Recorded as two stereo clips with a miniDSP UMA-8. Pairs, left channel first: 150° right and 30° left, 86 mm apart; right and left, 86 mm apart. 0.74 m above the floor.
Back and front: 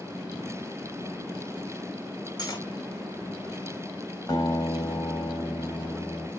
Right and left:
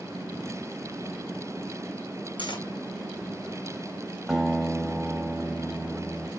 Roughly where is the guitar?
Behind.